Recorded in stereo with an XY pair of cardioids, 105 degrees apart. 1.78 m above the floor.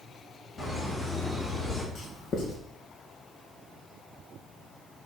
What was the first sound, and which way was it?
Laughter, 50° left.